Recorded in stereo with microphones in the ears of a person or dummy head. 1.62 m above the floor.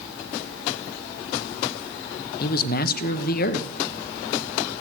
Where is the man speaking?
55° left (ahead or behind), 0.9 m.